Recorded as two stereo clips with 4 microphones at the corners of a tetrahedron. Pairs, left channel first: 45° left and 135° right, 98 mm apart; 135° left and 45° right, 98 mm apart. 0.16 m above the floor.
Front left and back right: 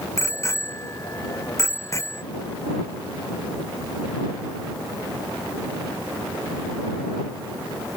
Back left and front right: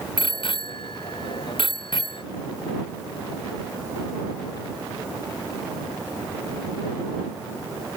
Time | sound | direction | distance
0.2 | a bicycle bell | 105° left | ?